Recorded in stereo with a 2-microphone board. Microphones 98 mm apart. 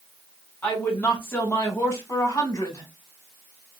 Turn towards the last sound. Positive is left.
turn(degrees=30)  # may be behind; listen again after turning